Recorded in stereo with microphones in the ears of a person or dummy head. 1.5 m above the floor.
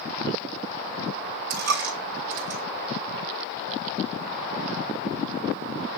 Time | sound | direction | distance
1.5 | a dropped coin | 65° right (ahead or behind) | 2.5 m